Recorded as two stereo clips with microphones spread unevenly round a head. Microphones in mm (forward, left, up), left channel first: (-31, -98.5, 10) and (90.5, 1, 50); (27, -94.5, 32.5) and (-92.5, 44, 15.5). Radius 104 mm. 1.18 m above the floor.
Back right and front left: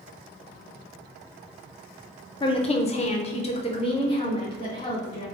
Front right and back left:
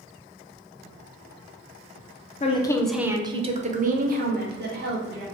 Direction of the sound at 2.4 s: 100° right.